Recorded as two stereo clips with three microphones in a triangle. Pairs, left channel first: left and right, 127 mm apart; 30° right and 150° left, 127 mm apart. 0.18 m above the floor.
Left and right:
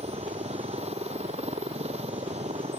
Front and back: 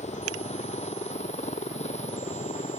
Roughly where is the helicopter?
Ahead right.